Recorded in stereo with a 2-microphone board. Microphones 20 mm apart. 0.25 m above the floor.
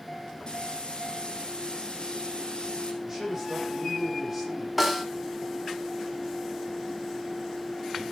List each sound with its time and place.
0.5 s frying: 45° left (ahead or behind), 4 m
3.0 s a man speaking: 10° right (ahead or behind), 8.5 m
4.8 s a snare drum: 5° right (ahead or behind), 2 m